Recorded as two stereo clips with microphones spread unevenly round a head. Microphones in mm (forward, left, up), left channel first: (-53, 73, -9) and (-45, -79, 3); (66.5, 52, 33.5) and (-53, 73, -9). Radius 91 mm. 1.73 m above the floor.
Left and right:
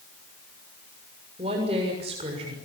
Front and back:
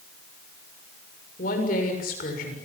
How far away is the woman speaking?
About 7 m.